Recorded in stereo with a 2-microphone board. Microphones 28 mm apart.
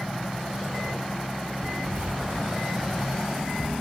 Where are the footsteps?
35° right (ahead or behind), 1.1 m; by 3.7 s 45° right (ahead or behind), 4 m.